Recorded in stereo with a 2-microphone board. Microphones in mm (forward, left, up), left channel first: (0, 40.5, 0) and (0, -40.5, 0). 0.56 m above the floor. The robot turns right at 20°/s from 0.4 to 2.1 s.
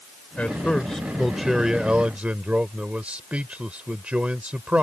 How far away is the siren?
No siren in this recording.